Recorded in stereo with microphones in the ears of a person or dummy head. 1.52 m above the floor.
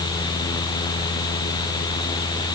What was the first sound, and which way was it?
Only background noise.